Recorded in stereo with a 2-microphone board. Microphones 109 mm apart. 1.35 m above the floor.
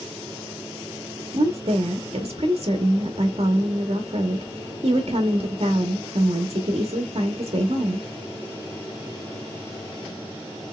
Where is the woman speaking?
60° right (ahead or behind), 1.2 m.